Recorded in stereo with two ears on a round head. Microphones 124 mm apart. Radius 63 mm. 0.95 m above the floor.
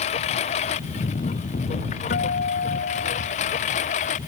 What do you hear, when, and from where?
0.0 s a lawn mower: 55° left (ahead or behind); by 4.3 s 60° left (ahead or behind)
2.1 s a guitar: 85° left